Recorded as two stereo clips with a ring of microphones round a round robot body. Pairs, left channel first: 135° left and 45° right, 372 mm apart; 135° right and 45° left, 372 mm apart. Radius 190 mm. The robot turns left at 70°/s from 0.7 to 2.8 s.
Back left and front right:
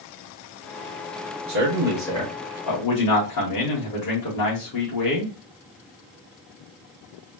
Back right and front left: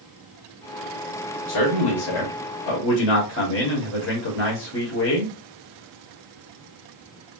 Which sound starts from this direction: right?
A man speaking, at 1.5 s.